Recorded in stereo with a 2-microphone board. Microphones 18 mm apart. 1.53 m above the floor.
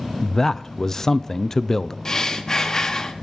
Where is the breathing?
35° left (ahead or behind), 1.1 m.